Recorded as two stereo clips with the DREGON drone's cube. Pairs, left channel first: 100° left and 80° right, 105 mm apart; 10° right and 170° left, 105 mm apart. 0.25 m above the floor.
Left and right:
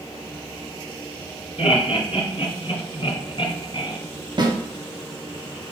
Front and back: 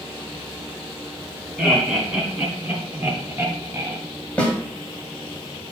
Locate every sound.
1.6 s laughter: 85° left, 3 m; by 4.0 s 115° left, 2 m
4.4 s a snare drum: 85° right, 1.7 m